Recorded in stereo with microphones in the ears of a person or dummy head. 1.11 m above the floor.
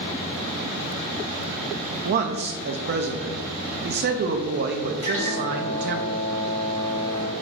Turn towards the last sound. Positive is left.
turn(degrees=35)  # may be behind; listen again after turning